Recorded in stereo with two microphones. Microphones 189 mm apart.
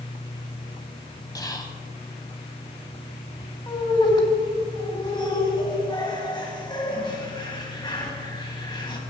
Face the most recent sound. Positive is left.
turn(degrees=25)  # may be behind; listen again after turning